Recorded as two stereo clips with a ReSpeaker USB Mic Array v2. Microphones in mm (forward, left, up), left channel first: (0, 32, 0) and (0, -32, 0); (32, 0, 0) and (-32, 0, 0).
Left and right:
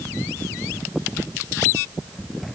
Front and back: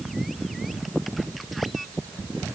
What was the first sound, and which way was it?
Only background noise.